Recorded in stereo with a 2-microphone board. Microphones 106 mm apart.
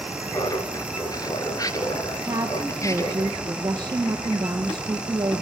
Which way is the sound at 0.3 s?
35° left (ahead or behind).